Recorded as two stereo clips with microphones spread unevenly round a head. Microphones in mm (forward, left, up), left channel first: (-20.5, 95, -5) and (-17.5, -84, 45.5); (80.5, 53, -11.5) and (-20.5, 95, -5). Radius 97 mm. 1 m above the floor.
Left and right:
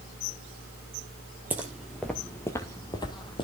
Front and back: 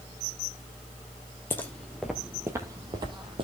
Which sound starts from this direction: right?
Footsteps, at 1.5 s.